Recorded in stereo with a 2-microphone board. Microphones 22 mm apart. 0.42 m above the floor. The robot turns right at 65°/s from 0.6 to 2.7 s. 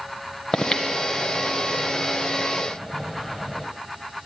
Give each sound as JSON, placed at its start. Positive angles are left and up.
{"t": 0.5, "sound": "breathing", "side_deg": 30, "distance_m": 1.0}